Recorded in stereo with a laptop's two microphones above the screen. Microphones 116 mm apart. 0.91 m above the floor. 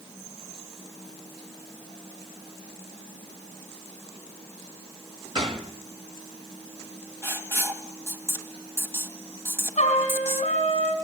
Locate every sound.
5.3 s a gunshot: 50° right (ahead or behind), 1.4 m
7.2 s writing: 25° right (ahead or behind), 2 m
9.8 s a trumpet: 75° left (ahead or behind), 5.5 m